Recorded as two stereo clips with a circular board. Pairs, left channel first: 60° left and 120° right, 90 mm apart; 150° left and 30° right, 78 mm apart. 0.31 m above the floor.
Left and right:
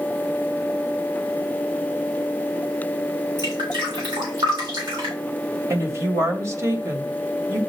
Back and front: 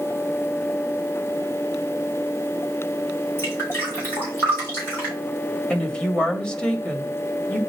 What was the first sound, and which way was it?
Dripping, 150° right.